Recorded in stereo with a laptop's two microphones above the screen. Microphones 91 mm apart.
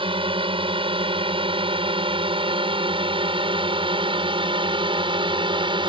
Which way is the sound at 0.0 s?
70° right (ahead or behind).